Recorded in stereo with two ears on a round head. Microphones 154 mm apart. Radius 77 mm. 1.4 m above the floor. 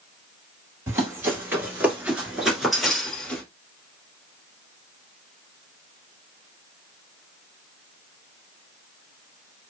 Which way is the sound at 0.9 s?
15° right (ahead or behind).